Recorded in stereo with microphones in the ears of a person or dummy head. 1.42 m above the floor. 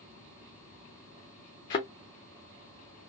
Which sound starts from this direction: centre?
A thud, at 1.7 s.